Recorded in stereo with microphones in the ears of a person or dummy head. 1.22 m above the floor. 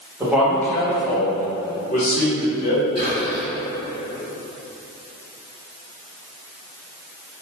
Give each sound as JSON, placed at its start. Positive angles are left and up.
{"t": 0.2, "sound": "a man speaking", "side_deg": -10, "distance_m": 0.7}
{"t": 3.0, "sound": "whispering", "side_deg": 30, "distance_m": 0.8}